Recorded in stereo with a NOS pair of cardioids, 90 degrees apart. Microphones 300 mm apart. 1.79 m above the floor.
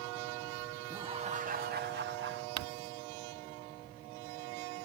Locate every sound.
0.9 s laughter: 15° right; by 2.5 s 40° right
2.6 s crumpling: 60° right